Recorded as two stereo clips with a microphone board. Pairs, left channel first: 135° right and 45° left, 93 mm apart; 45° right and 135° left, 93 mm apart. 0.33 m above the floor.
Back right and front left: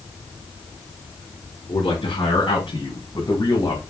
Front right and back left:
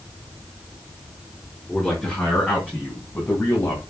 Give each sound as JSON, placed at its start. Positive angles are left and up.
{"t": 1.7, "sound": "a man speaking", "azimuth_deg": -125, "distance_m": 4.5}